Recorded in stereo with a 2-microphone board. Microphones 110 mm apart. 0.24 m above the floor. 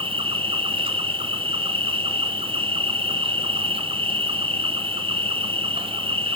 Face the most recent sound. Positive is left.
turn(degrees=-50)  # may be behind; listen again after turning